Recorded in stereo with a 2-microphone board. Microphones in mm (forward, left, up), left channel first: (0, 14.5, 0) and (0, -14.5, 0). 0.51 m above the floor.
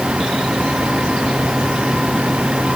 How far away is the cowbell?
I don't hear a cowbell.